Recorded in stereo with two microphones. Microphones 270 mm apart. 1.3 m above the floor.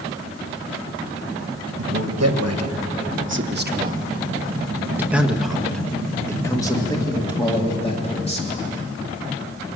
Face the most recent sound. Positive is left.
turn(degrees=25)  # may be behind; listen again after turning